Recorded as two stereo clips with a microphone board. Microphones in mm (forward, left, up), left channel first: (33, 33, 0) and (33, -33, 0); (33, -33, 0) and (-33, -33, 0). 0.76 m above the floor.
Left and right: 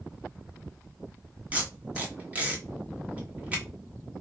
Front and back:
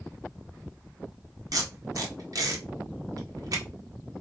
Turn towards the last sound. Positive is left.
turn(degrees=-160)